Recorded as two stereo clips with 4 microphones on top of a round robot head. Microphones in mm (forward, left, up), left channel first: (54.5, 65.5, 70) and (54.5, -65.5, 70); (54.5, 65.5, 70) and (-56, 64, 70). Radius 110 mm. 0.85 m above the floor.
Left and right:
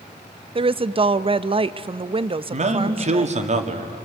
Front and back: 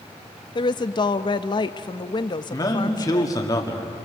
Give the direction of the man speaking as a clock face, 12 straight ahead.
2 o'clock.